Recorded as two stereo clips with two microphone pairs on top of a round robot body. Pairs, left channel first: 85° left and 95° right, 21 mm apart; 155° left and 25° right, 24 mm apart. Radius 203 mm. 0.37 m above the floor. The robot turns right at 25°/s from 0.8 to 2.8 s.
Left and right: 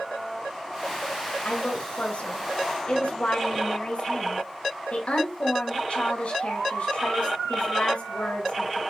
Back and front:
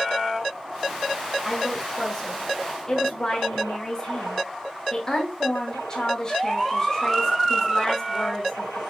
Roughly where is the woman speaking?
Ahead left.